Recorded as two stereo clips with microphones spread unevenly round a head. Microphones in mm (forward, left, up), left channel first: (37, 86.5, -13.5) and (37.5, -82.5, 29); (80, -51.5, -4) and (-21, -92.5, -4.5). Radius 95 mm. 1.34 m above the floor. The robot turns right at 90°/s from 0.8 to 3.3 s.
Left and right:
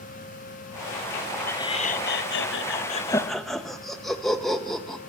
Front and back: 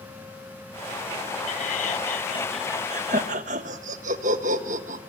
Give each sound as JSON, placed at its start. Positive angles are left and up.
{"t": 1.5, "sound": "laughter", "azimuth_deg": 10, "distance_m": 1.6}